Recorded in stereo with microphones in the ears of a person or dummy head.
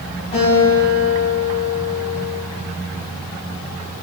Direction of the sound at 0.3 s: 30° left (ahead or behind).